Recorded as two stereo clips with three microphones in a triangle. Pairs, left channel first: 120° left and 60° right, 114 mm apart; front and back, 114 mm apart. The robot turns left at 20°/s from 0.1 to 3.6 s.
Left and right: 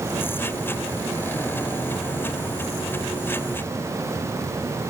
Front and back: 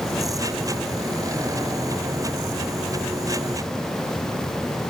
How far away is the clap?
I don't hear a clap.